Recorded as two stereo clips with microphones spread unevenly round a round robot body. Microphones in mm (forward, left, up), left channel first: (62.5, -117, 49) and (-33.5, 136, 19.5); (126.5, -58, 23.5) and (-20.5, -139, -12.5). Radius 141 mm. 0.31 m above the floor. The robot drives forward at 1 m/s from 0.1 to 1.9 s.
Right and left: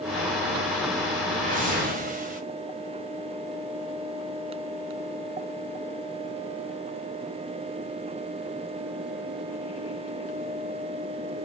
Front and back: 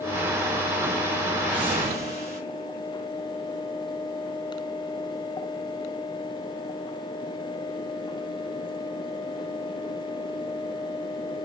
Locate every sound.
1.4 s a whoosh: 140° left, 1.8 m; by 2.4 s 150° left, 2 m